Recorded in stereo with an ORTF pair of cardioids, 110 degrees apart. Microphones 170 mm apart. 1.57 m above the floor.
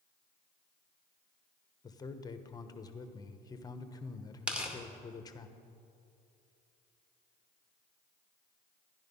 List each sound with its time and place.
1.8 s a man speaking: 20° left, 1.1 m
4.5 s tearing paper: 5° right, 2 m